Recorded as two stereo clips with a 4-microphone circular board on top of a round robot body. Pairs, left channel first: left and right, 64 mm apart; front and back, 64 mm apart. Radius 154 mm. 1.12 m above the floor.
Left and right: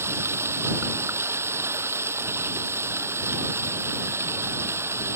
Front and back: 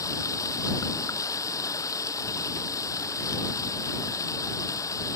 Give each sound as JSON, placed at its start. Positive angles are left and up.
{"t": 0.0, "sound": "running water", "azimuth_deg": -40}